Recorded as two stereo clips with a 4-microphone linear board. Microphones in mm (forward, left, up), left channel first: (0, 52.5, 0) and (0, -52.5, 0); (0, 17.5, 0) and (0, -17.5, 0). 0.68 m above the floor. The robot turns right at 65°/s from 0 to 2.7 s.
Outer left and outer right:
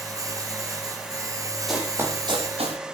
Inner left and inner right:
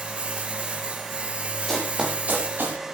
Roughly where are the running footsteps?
Centre.